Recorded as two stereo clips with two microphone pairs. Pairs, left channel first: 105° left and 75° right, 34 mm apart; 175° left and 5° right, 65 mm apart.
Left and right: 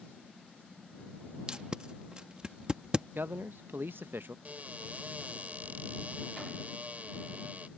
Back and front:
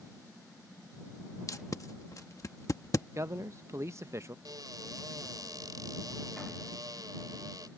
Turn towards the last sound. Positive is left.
turn(degrees=-30)